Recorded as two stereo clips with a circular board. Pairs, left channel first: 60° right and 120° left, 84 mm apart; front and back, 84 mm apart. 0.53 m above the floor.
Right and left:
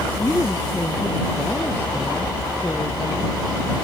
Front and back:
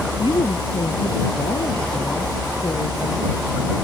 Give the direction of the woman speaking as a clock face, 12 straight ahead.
12 o'clock.